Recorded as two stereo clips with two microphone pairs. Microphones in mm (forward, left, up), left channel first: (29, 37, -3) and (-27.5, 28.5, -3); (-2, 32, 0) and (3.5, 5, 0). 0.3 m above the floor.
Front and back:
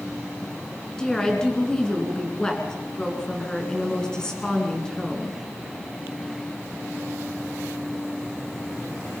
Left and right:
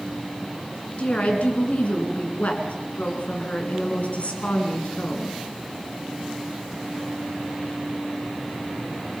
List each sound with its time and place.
1.0 s a woman speaking: 85° left, 4 m